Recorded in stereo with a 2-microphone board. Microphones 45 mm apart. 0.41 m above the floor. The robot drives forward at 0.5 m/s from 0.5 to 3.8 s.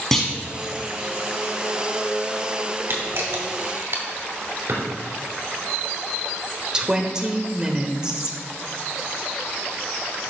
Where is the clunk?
5° left (ahead or behind), 1.4 m.